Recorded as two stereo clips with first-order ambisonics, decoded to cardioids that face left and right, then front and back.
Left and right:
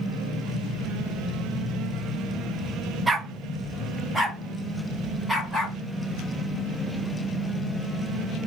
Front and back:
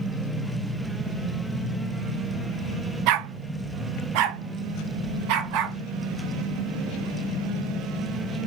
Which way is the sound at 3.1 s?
165° right.